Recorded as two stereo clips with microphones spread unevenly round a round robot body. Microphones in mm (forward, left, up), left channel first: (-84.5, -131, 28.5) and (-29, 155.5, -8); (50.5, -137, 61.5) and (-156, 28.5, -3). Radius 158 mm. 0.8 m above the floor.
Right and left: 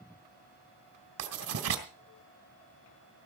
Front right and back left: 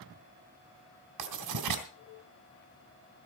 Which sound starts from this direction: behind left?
Writing, at 1.2 s.